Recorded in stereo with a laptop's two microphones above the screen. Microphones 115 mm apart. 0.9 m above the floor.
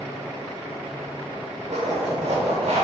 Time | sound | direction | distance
1.7 | a zipper | 70° right (ahead or behind) | 1.2 m